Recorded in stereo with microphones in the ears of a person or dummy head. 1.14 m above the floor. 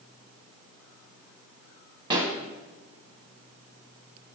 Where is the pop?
20° right (ahead or behind), 0.9 m.